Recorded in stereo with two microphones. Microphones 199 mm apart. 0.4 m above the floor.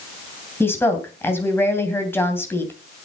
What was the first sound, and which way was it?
A woman speaking, 10° left (ahead or behind).